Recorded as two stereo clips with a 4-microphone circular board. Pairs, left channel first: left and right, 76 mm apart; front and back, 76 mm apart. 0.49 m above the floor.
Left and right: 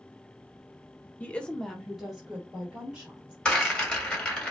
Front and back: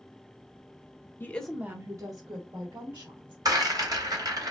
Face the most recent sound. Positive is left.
turn(degrees=170)